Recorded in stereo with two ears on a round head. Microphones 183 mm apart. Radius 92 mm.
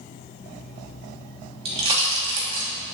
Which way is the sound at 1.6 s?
30° right (ahead or behind).